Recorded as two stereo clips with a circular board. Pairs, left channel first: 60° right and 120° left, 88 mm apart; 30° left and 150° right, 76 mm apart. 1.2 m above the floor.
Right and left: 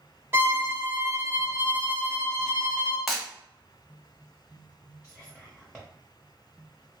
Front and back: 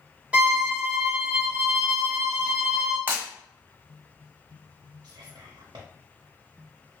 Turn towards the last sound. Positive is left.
turn(degrees=-150)